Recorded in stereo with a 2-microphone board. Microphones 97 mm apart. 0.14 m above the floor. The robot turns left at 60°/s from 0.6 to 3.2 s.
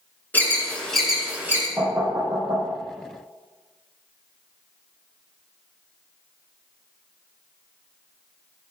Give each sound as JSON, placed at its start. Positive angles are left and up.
{"t": 0.3, "sound": "an alarm", "side_deg": 20, "distance_m": 2.5}
{"t": 1.8, "sound": "knocking", "side_deg": -10, "distance_m": 3.5}